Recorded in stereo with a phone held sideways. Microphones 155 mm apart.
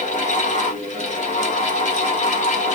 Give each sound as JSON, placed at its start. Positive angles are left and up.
{"t": 0.0, "sound": "a fan", "side_deg": 50, "distance_m": 1.3}